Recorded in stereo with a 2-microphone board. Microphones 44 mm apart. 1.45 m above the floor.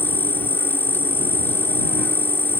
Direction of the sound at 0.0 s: 55° left (ahead or behind).